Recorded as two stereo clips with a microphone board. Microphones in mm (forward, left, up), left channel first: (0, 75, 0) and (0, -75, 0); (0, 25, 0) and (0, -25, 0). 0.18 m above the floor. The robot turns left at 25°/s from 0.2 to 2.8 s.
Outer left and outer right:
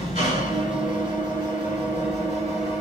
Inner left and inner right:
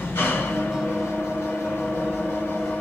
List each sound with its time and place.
0.0 s an engine running: 115° left, 1.6 m; by 2.8 s 50° left, 1.6 m